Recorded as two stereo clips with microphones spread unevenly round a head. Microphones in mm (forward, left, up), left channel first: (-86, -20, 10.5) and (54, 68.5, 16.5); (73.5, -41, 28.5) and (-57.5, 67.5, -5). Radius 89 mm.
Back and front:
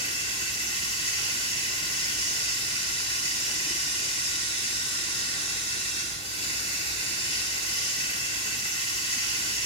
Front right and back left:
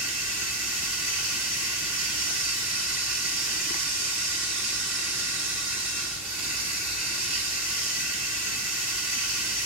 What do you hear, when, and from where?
0.0 s running water: 160° left, 5.5 m